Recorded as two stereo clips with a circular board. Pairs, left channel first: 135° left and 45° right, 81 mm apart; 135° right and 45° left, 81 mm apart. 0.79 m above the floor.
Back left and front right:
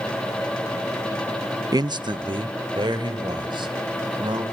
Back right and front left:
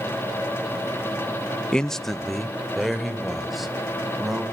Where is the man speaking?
60° right, 0.6 m; by 4.4 s 45° right, 5 m.